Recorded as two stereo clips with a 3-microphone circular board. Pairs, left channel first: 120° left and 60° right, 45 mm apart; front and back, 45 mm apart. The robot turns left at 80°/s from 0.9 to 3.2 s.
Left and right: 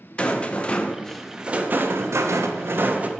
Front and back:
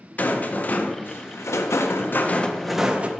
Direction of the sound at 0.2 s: 55° left.